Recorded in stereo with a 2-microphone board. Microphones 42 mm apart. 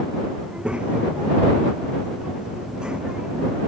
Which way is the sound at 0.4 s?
25° right (ahead or behind).